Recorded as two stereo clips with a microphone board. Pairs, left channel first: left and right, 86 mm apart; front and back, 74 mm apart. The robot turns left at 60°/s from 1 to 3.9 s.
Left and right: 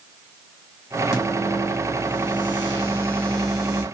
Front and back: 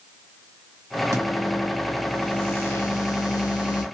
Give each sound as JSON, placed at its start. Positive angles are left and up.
{"t": 1.1, "sound": "a microwave", "azimuth_deg": 140, "distance_m": 1.4}